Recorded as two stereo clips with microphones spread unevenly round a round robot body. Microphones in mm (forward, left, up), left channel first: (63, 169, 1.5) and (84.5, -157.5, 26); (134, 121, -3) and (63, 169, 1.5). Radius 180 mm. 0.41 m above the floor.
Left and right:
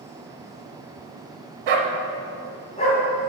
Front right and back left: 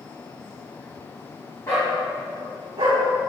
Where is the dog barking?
105° right, 0.9 m; by 3.0 s 160° left, 1.5 m.